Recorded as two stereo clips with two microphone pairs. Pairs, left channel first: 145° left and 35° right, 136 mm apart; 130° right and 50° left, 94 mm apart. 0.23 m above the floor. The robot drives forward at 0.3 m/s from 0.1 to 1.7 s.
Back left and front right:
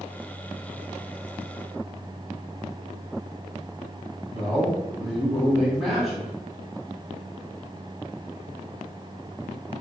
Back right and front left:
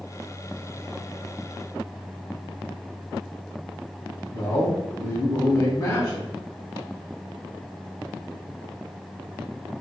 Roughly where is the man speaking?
Behind right.